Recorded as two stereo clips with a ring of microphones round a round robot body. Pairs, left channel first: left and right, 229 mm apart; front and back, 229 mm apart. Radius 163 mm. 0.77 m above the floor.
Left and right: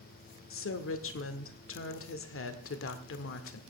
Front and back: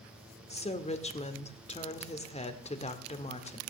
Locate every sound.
0.5 s a woman speaking: 65° left, 1.9 m